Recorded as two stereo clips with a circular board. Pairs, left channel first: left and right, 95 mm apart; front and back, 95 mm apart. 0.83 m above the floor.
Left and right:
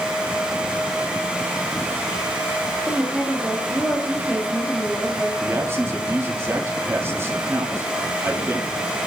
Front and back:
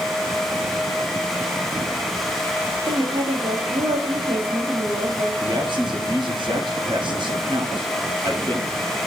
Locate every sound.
2.9 s a woman speaking: straight behind, 1.6 m
5.4 s a man speaking: 155° right, 1.4 m